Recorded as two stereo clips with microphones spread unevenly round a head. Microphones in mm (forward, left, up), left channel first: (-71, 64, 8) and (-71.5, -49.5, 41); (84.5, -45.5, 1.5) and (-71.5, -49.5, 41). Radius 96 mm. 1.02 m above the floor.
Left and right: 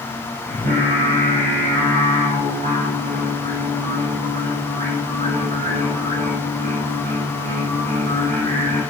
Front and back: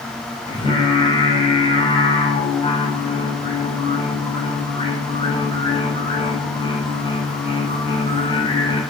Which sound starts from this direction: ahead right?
Singing, at 0.5 s.